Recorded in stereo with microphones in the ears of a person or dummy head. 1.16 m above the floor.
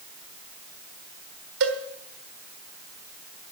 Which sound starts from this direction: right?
A cowbell, at 1.6 s.